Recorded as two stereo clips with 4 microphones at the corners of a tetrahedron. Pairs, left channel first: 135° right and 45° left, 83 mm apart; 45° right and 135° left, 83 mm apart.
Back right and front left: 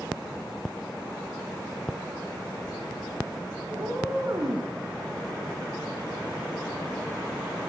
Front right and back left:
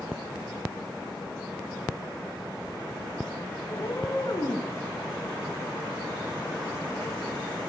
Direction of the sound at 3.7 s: Straight ahead.